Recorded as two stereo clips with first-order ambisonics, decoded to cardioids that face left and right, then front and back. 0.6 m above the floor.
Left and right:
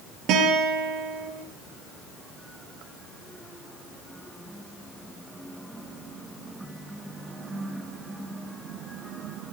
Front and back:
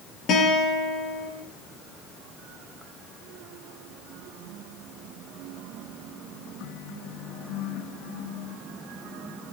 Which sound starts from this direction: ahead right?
A guitar, at 0.3 s.